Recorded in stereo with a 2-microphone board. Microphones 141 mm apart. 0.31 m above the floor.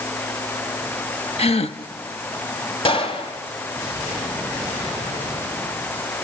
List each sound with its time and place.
1.4 s a gasp: 50° left (ahead or behind), 0.8 m
2.9 s a gunshot: 40° left (ahead or behind), 2 m